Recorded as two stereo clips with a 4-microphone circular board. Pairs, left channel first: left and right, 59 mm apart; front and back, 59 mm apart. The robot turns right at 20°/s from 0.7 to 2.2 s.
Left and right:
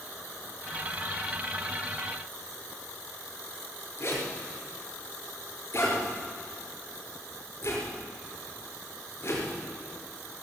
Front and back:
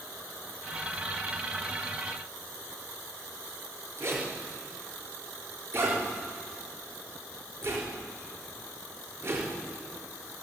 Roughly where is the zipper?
Behind left.